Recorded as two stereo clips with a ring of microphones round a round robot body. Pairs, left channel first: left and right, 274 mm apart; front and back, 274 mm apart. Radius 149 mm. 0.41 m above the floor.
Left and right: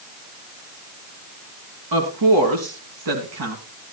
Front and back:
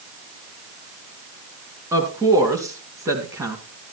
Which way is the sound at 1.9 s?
100° right.